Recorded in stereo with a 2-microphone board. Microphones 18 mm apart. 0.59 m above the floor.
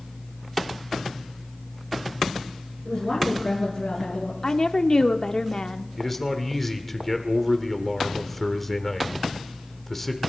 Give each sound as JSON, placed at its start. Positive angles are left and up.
{"t": 2.9, "sound": "a woman speaking", "side_deg": 40, "distance_m": 8.0}
{"t": 4.4, "sound": "a woman speaking", "side_deg": 40, "distance_m": 0.9}
{"t": 6.0, "sound": "a man speaking", "side_deg": 10, "distance_m": 1.8}